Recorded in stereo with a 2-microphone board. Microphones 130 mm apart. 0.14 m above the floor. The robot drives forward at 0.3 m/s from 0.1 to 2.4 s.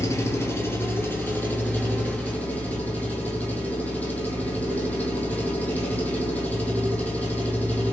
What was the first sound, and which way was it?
An engine running, 25° left (ahead or behind).